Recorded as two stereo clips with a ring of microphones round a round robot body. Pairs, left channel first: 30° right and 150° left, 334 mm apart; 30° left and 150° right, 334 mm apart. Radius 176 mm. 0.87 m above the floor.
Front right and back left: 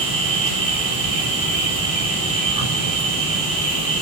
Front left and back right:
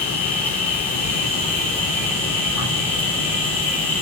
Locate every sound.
0.0 s an insect: 115° left, 6 m